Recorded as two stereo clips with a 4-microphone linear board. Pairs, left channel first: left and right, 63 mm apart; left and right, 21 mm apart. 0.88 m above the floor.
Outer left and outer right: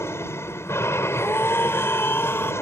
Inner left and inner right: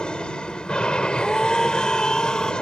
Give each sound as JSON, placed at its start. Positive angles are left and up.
{"t": 0.0, "sound": "an aircraft", "side_deg": 45}
{"t": 1.1, "sound": "a scream", "side_deg": 35}